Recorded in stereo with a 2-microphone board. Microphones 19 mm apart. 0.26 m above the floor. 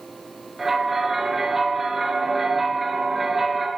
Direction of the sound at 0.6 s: 15° right (ahead or behind).